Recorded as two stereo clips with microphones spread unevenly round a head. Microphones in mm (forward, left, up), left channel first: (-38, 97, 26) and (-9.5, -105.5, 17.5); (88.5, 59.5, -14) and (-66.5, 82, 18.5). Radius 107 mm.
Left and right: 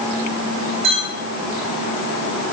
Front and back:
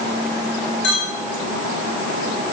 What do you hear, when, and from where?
0.8 s a clink: 20° right, 5.5 m